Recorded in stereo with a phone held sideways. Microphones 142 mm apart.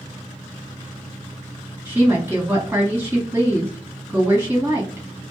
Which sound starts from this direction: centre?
A woman speaking, at 1.9 s.